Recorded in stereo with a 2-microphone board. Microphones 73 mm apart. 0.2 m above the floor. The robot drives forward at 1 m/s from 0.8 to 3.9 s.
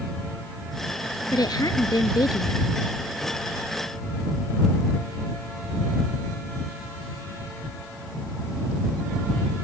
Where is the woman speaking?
65° left (ahead or behind).